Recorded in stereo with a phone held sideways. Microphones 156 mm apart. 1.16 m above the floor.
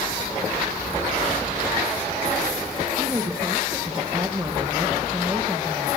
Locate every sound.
3.0 s a woman speaking: 20° right (ahead or behind), 1.2 m